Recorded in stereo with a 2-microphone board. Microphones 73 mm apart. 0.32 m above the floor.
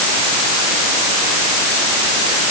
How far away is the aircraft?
No aircraft in this recording.